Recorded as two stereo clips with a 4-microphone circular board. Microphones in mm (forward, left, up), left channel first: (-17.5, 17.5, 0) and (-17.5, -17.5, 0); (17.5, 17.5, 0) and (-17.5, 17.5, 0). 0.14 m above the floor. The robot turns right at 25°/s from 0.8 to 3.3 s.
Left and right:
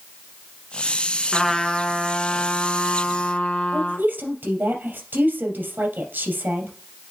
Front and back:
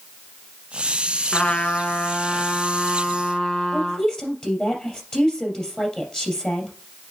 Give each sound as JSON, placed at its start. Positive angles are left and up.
{"t": 1.3, "sound": "a trumpet", "azimuth_deg": 15, "distance_m": 0.9}
{"t": 3.7, "sound": "a woman speaking", "azimuth_deg": -65, "distance_m": 3.0}